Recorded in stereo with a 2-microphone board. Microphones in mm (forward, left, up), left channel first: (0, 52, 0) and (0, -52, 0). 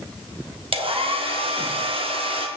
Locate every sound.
0.7 s a hair dryer: 60° right (ahead or behind), 1.3 m